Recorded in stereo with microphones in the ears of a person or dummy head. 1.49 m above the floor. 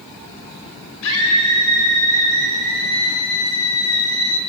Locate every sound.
1.0 s a scream: 80° left, 7 m; by 4.4 s 85° left, 5.5 m